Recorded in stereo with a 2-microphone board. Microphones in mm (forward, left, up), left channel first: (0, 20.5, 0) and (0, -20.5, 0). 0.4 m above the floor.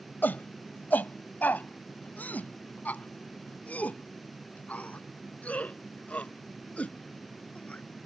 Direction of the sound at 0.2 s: 50° left (ahead or behind).